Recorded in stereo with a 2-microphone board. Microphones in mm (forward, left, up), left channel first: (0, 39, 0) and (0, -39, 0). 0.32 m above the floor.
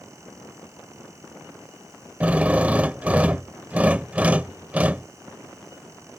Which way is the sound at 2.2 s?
20° right (ahead or behind).